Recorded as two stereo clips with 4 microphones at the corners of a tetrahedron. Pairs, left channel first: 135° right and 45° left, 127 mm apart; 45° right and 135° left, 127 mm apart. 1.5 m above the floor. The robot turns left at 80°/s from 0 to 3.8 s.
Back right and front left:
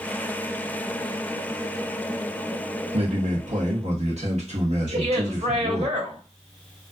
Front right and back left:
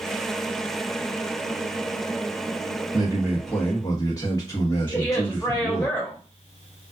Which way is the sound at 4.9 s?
25° left.